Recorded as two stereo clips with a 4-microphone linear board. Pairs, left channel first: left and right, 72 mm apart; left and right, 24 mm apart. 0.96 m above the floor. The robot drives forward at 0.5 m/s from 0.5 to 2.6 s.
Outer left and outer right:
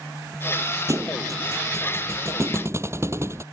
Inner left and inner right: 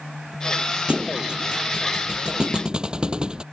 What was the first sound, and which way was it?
A thud, 45° right (ahead or behind).